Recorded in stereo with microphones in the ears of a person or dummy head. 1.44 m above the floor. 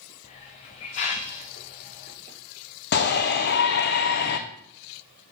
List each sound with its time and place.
0.2 s a hiss: 20° left (ahead or behind), 0.9 m
2.9 s a shout: 60° left (ahead or behind), 0.8 m